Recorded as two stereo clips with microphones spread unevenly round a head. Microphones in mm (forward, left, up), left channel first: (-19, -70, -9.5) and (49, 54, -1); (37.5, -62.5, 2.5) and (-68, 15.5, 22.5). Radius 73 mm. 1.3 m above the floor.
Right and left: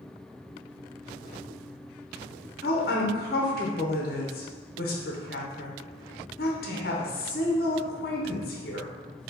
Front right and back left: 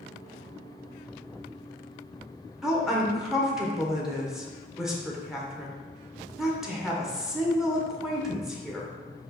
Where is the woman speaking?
125° right, 1.0 m.